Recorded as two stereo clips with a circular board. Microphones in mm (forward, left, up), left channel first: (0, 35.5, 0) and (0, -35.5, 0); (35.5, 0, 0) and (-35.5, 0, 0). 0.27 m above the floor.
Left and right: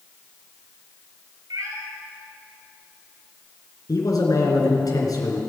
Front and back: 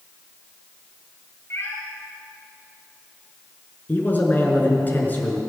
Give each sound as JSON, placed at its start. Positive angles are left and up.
{"t": 1.5, "sound": "a cat meowing", "azimuth_deg": -55, "distance_m": 2.5}
{"t": 3.9, "sound": "a man speaking", "azimuth_deg": 60, "distance_m": 3.5}